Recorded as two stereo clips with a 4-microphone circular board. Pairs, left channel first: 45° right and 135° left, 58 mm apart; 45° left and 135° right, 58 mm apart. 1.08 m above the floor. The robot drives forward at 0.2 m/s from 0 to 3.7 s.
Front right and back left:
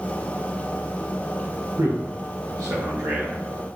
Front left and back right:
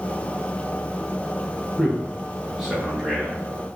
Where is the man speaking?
125° left, 0.5 m; by 3.4 s 145° left, 0.8 m.